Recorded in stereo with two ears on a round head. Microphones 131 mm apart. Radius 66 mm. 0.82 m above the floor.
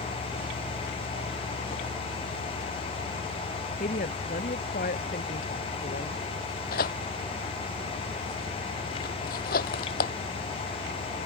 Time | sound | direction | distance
3.8 | a woman speaking | 60° left (ahead or behind) | ?
6.7 | tearing paper | 65° left (ahead or behind) | ?